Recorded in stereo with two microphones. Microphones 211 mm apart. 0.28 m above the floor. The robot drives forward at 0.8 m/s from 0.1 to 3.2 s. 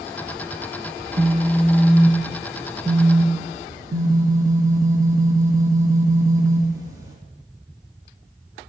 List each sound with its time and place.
1.0 s a phone buzzing: 30° right (ahead or behind), 1.0 m; by 7.2 s 15° right (ahead or behind), 2 m